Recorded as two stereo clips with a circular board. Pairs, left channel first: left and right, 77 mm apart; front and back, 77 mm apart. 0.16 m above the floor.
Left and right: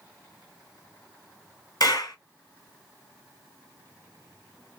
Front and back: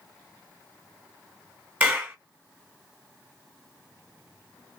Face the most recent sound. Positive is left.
turn(degrees=110)